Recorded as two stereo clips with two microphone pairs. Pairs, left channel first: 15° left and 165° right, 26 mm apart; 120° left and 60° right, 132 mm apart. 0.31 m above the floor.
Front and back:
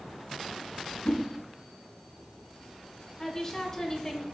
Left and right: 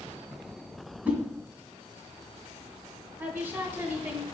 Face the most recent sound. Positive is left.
turn(degrees=-15)